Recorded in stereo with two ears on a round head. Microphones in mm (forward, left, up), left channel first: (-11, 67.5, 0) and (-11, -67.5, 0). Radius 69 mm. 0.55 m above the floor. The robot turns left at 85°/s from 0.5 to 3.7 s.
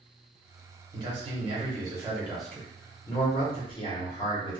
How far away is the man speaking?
About 1.0 m.